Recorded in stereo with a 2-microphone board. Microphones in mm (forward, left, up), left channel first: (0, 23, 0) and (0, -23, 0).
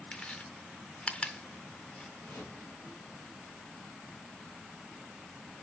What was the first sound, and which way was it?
Chewing, 25° left (ahead or behind).